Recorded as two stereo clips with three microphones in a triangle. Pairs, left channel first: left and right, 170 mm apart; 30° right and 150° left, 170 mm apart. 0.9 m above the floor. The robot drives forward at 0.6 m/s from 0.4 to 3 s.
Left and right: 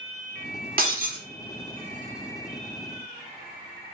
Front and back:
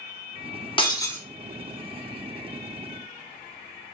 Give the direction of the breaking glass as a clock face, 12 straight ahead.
3 o'clock.